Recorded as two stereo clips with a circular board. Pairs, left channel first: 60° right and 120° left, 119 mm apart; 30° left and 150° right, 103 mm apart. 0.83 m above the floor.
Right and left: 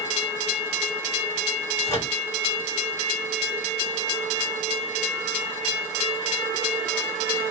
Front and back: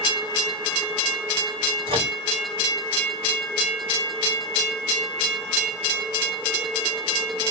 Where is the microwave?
120° right, 2 m.